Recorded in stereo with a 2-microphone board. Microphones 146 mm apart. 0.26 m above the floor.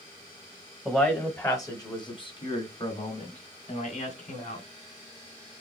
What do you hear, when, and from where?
0.8 s a man speaking: 5° left (ahead or behind), 1.3 m; by 4.7 s 60° left (ahead or behind), 2.5 m